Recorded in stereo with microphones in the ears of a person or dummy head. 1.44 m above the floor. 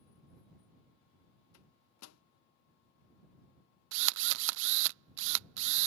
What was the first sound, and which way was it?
A microwave, 90° left.